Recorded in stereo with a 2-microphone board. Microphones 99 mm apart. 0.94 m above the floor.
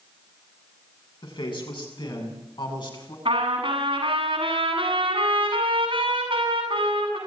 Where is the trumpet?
60° right (ahead or behind), 8 m.